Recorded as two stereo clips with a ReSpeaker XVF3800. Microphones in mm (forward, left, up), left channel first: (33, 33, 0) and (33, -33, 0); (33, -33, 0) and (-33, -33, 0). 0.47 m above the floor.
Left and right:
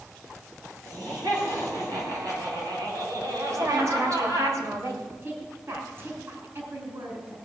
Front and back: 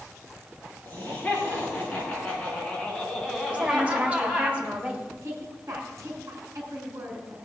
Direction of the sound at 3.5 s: 115° right.